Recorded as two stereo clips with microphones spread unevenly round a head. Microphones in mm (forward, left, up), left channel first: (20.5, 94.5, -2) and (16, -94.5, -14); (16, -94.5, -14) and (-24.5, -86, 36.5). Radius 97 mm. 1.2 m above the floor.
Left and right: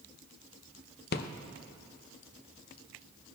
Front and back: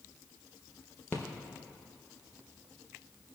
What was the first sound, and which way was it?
A rattle, 50° left.